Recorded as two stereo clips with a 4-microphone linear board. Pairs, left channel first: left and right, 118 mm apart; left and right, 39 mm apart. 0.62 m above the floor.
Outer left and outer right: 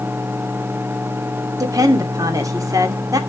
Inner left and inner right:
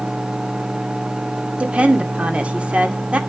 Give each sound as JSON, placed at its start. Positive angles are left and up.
{"t": 1.6, "sound": "a woman speaking", "side_deg": -30, "distance_m": 2.0}